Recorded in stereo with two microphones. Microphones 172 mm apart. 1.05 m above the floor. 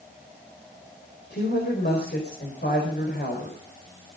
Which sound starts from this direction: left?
A woman speaking, at 1.3 s.